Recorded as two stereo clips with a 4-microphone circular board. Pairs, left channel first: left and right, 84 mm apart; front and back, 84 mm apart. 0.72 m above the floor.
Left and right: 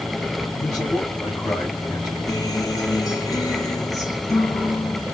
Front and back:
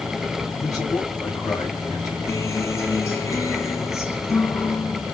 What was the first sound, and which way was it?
A man speaking, 45° left.